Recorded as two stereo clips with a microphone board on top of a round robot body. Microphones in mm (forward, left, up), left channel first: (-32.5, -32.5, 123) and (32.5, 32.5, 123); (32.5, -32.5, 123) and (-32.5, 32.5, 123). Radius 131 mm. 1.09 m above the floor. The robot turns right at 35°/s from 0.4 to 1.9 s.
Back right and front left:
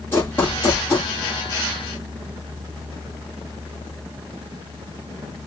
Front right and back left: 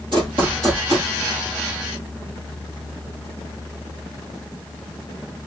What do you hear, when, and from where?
0.1 s running footsteps: 165° left, 1.1 m; by 1.1 s 170° right, 1.1 m